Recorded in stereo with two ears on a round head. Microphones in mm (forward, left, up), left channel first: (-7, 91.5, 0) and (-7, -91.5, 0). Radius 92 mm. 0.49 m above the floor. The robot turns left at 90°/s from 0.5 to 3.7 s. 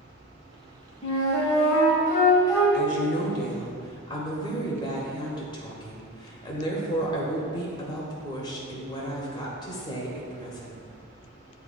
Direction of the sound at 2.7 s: 110° left.